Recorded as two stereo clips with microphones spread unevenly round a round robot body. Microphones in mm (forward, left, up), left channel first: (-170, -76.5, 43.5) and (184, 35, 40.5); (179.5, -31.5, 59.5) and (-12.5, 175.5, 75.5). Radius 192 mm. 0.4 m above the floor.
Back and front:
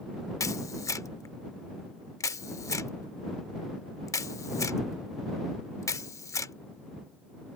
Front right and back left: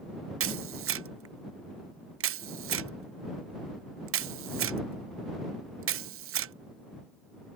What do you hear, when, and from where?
0.4 s a camera shutter: 120° left